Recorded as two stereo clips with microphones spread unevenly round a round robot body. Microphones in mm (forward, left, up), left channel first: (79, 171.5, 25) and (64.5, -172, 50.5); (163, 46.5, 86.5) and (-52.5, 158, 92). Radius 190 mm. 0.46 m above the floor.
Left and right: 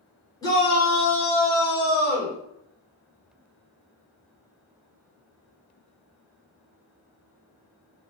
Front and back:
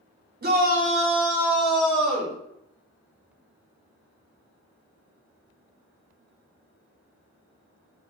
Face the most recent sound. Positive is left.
turn(degrees=40)